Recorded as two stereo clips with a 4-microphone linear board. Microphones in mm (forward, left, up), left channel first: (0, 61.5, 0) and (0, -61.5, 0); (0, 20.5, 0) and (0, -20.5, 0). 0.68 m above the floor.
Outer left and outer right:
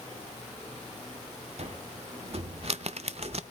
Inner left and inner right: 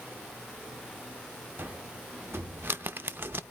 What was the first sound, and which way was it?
A cupboard door, 60° right (ahead or behind).